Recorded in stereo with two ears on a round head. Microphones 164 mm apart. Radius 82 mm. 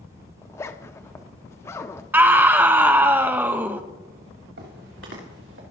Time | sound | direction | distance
0.4 | a zipper | 15° left (ahead or behind) | 0.5 m
2.1 | a scream | 10° right (ahead or behind) | 0.7 m
4.6 | footsteps | 65° right (ahead or behind) | 3.5 m